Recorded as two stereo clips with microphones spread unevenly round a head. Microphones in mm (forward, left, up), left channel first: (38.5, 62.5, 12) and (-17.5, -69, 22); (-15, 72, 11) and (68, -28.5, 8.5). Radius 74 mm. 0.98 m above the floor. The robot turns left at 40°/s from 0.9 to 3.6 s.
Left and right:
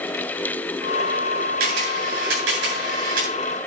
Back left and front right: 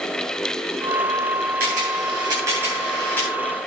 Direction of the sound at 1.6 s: 85° right.